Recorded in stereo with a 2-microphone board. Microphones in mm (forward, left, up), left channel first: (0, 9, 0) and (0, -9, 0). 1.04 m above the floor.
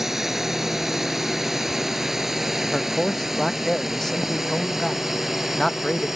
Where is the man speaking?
25° left (ahead or behind).